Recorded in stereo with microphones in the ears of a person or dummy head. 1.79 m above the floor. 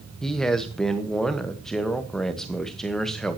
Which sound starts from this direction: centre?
A man speaking, at 0.2 s.